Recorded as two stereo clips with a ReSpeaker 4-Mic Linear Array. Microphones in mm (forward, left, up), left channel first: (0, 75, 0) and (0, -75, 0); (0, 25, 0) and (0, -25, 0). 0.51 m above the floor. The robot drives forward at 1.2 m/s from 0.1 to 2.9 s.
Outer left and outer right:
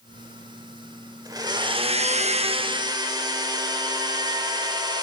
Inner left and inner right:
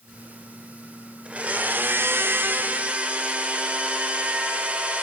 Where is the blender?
25° right (ahead or behind), 1.3 m.